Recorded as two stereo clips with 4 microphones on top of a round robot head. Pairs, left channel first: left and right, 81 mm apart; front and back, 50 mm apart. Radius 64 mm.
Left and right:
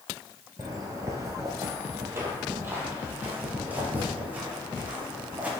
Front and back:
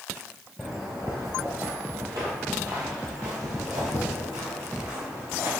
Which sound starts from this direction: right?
Footsteps, at 0.6 s.